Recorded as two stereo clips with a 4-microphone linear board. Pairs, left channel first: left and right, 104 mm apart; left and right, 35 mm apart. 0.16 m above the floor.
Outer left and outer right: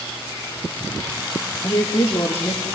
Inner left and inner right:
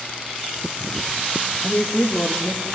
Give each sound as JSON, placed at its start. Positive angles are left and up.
{"t": 1.6, "sound": "a woman speaking", "side_deg": 35, "distance_m": 3.5}